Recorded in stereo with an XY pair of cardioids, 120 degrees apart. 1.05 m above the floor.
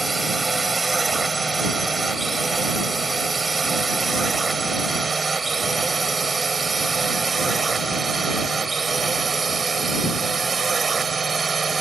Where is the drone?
20° right; by 11.8 s 30° right.